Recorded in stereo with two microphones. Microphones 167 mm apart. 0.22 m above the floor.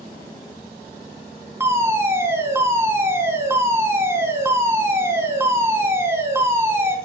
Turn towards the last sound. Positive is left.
turn(degrees=-15)  # may be behind; listen again after turning